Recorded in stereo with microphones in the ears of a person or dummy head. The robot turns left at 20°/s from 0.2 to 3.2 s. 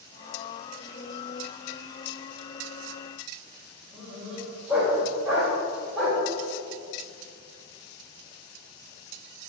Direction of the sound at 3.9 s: 5° right (ahead or behind).